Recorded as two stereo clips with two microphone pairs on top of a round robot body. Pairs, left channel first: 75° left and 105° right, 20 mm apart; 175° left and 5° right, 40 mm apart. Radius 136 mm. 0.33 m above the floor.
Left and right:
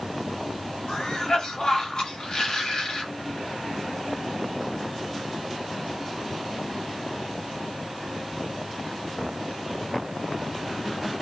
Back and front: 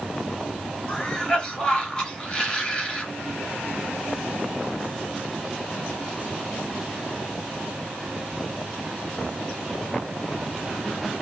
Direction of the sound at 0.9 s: 115° left.